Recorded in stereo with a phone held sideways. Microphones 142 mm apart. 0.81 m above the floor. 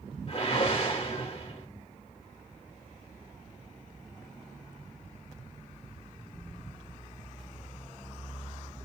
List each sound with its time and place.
0.3 s a whoosh: 40° left (ahead or behind), 2.5 m